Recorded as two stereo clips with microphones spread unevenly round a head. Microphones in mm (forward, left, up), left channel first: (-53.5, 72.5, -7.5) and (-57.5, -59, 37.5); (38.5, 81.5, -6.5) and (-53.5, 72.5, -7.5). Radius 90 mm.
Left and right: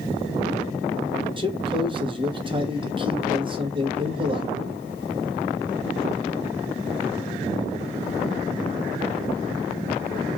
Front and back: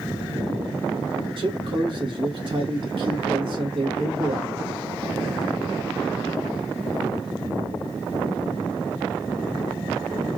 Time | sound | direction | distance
1.4 | a man speaking | 150° right | 1.4 m